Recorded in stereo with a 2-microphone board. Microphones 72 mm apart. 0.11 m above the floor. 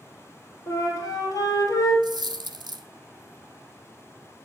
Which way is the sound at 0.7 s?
55° left (ahead or behind).